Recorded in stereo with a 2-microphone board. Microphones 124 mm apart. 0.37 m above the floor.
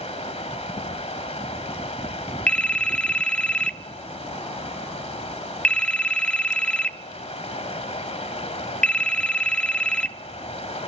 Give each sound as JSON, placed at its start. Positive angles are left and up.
{"t": 0.0, "sound": "running water", "side_deg": 55, "distance_m": 1.5}
{"t": 2.5, "sound": "a phone ringing", "side_deg": 10, "distance_m": 0.5}